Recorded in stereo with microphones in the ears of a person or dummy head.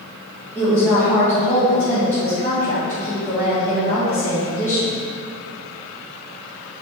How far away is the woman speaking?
About 3 m.